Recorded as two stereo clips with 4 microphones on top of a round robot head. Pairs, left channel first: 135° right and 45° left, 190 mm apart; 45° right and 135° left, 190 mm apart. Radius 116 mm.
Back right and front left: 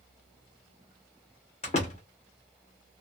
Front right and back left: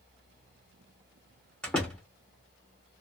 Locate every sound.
1.6 s a door slam: 125° right, 0.7 m